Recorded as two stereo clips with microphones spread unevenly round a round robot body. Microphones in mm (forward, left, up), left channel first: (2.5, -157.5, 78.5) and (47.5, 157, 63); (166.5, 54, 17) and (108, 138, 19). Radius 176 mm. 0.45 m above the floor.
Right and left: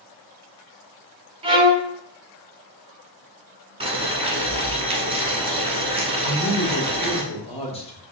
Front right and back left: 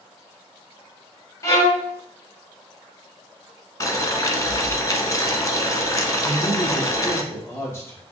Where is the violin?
5° left, 0.9 m.